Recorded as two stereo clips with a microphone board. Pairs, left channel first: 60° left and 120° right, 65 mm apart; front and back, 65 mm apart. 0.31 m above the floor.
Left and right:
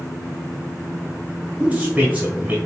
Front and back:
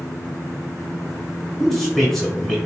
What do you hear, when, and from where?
1.6 s a man speaking: 80° right, 1.3 m